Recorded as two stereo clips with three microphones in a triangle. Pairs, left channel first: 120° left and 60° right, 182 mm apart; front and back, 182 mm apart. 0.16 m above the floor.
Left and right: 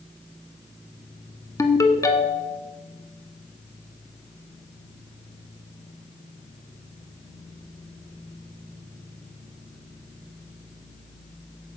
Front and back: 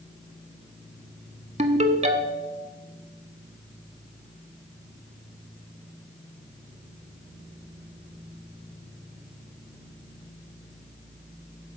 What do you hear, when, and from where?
1.6 s a ringtone: straight behind, 0.7 m